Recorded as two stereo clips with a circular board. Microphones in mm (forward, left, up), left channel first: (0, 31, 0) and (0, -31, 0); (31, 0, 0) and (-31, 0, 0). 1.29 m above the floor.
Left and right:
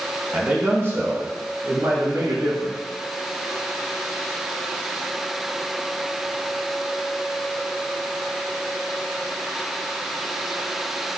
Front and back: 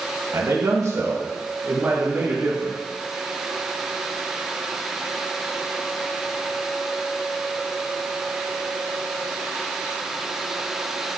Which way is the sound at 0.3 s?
150° right.